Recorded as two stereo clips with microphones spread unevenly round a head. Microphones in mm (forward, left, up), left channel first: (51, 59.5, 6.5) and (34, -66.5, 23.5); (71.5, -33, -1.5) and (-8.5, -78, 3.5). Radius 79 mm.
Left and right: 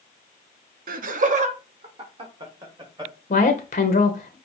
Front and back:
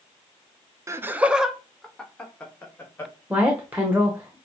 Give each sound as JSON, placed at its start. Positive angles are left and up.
{"t": 0.9, "sound": "laughter", "azimuth_deg": -90, "distance_m": 0.7}
{"t": 3.3, "sound": "a woman speaking", "azimuth_deg": 130, "distance_m": 0.8}